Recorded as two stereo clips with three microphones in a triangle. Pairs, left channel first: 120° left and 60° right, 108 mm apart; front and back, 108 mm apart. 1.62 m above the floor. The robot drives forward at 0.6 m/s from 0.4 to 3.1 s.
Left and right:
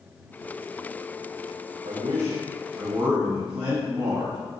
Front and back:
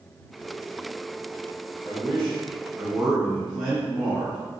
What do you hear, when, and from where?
1.8 s a man speaking: 90° right, 0.8 m; by 4.4 s 130° right, 1.1 m